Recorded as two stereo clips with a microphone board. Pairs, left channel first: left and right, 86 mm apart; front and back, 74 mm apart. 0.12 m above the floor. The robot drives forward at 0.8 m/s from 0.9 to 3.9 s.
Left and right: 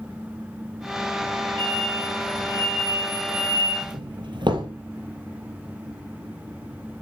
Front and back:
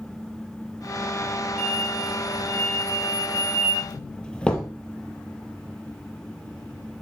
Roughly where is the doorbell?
Right.